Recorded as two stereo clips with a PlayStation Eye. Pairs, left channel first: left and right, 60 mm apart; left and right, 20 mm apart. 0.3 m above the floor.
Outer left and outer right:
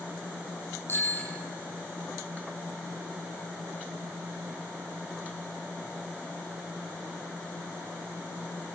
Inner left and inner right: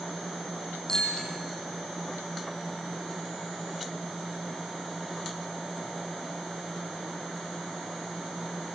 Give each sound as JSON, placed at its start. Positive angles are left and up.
{"t": 0.9, "sound": "a bicycle bell", "side_deg": 35, "distance_m": 8.5}